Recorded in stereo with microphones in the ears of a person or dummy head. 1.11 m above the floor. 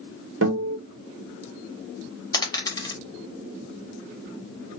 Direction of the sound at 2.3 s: 20° left (ahead or behind).